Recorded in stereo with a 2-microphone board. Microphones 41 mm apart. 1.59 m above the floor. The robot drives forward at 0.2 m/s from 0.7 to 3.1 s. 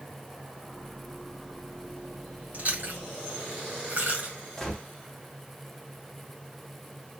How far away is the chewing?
About 1.9 m.